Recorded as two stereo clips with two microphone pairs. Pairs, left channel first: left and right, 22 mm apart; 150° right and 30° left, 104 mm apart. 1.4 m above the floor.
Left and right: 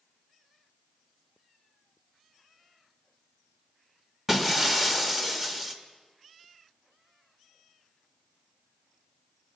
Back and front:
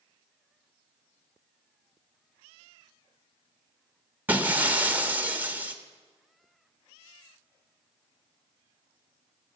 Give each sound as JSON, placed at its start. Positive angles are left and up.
{"t": 4.3, "sound": "breaking glass", "azimuth_deg": -25, "distance_m": 1.1}